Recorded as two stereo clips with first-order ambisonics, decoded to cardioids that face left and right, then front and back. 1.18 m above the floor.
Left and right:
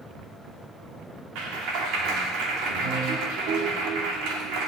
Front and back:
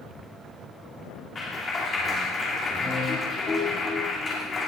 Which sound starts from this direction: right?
A clap, at 1.4 s.